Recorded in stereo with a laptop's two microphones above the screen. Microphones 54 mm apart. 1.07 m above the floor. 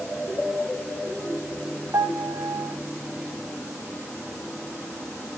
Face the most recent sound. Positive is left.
turn(degrees=-75)  # may be behind; listen again after turning